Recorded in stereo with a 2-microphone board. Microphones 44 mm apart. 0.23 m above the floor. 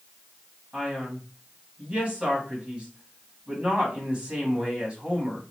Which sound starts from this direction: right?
A man speaking, at 0.7 s.